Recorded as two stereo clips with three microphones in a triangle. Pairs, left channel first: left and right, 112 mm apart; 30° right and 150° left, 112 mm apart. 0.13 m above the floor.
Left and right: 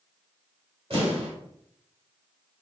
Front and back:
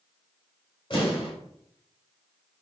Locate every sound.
0.9 s an explosion: 60° right, 2.5 m